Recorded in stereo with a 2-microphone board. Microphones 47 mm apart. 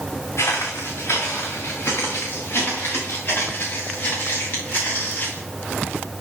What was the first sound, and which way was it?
Footsteps, 70° left (ahead or behind).